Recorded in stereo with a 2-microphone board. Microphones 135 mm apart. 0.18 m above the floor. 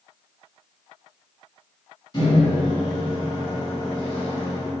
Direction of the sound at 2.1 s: 30° left (ahead or behind).